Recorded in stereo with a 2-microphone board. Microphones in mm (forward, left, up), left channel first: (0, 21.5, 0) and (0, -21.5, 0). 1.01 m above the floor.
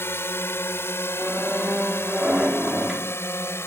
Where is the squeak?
20° right (ahead or behind).